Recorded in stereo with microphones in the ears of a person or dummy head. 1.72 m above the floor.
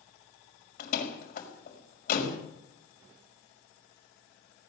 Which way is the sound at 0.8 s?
50° left (ahead or behind).